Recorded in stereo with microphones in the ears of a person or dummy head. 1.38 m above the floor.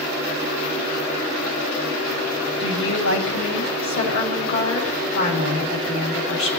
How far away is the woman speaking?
About 8 m.